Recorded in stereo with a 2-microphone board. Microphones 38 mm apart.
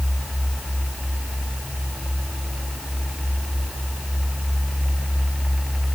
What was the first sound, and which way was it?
Only background noise.